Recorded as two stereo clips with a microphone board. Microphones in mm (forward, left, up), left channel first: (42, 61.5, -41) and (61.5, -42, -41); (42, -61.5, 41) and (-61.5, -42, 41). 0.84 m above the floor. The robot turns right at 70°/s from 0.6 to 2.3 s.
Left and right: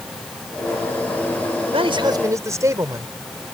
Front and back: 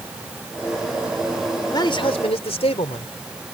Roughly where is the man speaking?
Ahead right.